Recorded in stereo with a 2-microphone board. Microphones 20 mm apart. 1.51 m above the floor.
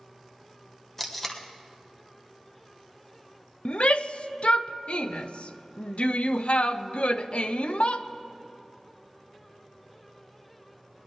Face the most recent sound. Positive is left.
turn(degrees=70)  # may be behind; listen again after turning